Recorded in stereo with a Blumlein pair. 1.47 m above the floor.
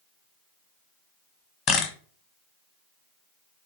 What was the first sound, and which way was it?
A camera shutter, 35° left.